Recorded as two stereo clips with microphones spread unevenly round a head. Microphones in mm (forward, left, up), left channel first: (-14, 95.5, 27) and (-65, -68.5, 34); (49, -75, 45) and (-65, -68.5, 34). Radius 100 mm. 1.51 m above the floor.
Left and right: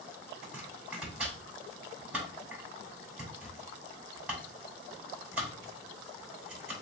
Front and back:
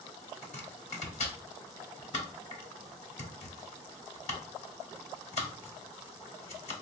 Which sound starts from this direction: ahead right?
Chopping, at 0.4 s.